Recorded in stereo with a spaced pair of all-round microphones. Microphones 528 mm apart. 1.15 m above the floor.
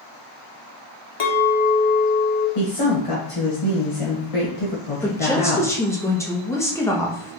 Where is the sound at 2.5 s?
80° left, 1.1 m.